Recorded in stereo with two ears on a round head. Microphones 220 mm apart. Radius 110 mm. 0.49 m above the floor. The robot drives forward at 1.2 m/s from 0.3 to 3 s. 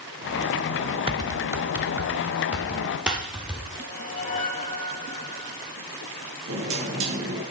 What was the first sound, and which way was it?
Typing on a keyboard, 20° right (ahead or behind).